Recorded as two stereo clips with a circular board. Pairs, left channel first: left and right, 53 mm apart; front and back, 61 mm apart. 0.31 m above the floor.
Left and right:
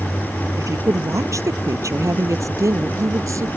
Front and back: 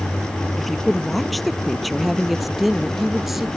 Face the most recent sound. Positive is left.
turn(degrees=-95)